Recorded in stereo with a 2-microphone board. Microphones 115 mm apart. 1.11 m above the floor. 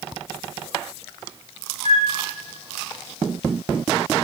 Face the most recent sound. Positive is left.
turn(degrees=-75)  # may be behind; listen again after turning